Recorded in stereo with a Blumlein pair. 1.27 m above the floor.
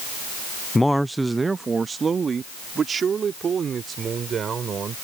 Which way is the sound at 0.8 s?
10° left.